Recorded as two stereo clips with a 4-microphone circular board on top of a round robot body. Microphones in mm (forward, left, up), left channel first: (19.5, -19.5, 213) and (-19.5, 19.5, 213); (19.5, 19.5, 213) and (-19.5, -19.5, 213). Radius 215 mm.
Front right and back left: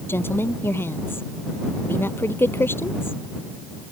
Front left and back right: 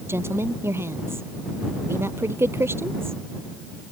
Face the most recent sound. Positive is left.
turn(degrees=-90)